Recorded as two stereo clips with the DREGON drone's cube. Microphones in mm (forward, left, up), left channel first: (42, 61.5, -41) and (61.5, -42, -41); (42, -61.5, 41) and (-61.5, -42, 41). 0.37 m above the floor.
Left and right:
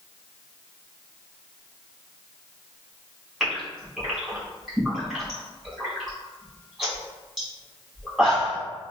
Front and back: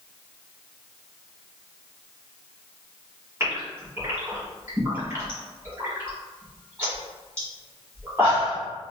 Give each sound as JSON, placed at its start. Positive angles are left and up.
{"t": 3.4, "sound": "a gasp", "azimuth_deg": -155, "distance_m": 1.6}